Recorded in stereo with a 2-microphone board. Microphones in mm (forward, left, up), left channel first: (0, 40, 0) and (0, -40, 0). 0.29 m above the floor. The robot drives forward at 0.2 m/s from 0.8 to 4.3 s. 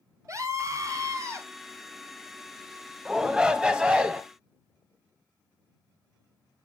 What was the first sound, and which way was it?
A scream, 40° right (ahead or behind).